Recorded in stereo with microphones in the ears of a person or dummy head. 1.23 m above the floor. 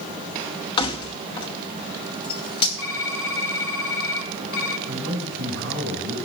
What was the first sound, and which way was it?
Keys jangling, 25° left (ahead or behind).